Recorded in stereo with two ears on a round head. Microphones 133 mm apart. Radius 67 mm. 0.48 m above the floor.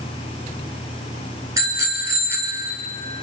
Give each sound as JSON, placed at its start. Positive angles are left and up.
{"t": 1.6, "sound": "a bicycle bell", "side_deg": -20, "distance_m": 4.5}